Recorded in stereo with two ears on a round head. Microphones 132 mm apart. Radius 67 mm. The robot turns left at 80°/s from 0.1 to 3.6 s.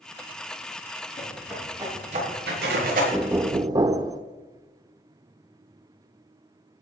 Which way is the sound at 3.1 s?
10° right.